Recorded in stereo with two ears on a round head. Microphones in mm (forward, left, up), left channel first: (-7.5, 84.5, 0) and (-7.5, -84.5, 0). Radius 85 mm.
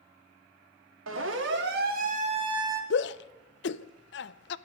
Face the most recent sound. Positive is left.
turn(degrees=65)  # may be behind; listen again after turning